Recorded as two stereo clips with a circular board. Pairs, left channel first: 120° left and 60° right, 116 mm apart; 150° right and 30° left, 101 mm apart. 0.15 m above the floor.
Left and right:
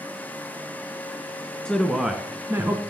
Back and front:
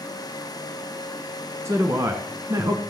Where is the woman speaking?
45° left, 1.2 m; by 2.8 s 10° right, 1.5 m.